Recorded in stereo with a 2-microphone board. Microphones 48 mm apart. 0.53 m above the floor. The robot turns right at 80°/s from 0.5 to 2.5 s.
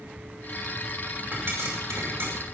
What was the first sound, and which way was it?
A pop, 45° right (ahead or behind).